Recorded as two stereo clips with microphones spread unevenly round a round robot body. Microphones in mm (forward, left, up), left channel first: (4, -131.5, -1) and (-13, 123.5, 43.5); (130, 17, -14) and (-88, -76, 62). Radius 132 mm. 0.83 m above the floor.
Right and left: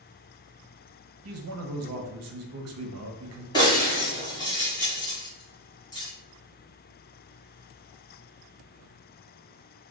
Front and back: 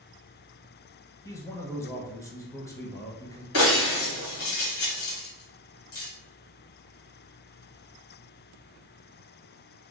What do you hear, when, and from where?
1.2 s a man speaking: 80° left, 0.7 m
3.5 s breaking glass: 10° right, 1.5 m